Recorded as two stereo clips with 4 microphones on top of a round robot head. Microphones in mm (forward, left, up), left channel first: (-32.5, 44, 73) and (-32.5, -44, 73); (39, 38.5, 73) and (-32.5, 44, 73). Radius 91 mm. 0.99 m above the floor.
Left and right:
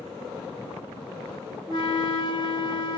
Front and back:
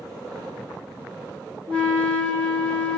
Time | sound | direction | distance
1.7 | a flute | 65° left | 1.3 m